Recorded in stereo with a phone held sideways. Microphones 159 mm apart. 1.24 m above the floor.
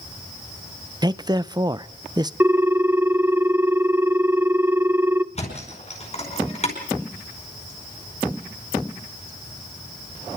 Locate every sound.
1.0 s a man speaking: 25° right (ahead or behind), 0.5 m
2.4 s a ringtone: 15° right (ahead or behind), 0.5 m
5.3 s a thud: 40° left (ahead or behind), 5 m